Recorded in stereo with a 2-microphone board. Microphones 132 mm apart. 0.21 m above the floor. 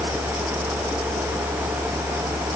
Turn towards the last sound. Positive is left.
No sound to turn to.